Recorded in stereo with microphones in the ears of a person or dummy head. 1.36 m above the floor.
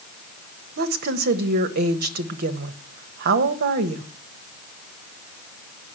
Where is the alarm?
No alarm in this recording.